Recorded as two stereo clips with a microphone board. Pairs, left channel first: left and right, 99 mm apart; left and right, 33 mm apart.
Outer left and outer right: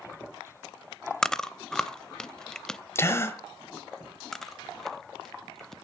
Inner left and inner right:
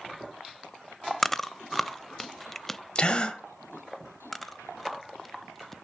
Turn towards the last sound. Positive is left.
turn(degrees=5)  # may be behind; listen again after turning